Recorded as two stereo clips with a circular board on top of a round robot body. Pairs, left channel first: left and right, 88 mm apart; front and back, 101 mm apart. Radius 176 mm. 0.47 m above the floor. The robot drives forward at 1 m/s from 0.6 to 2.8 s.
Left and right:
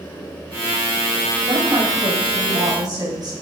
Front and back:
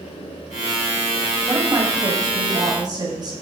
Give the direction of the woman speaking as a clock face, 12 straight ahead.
4 o'clock.